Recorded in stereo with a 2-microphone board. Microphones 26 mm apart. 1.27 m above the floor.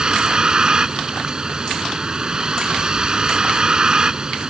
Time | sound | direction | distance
0.0 | a vehicle | 30° right (ahead or behind) | ?